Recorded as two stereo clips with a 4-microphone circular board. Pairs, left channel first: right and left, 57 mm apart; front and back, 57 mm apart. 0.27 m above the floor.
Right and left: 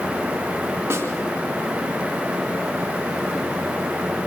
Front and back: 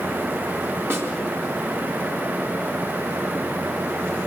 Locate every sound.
0.9 s a snare drum: 135° left, 3.5 m